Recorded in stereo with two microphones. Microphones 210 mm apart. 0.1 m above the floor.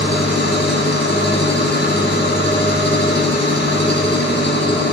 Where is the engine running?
60° left (ahead or behind), 1.2 m.